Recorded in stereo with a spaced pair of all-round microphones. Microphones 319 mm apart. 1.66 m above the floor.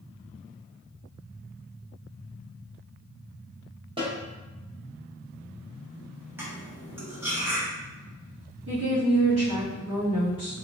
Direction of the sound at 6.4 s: 5° right (ahead or behind).